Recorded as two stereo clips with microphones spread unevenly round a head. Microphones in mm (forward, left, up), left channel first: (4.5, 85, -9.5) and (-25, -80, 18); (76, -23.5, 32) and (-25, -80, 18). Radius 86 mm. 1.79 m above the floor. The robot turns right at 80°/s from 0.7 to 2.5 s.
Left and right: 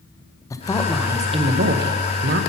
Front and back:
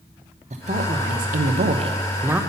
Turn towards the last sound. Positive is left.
turn(degrees=-60)